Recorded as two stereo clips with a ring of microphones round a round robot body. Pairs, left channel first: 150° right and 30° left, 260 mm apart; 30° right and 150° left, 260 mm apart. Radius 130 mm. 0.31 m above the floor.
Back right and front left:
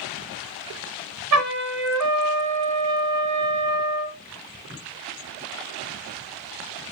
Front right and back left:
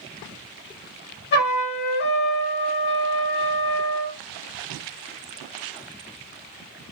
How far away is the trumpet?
About 1.0 m.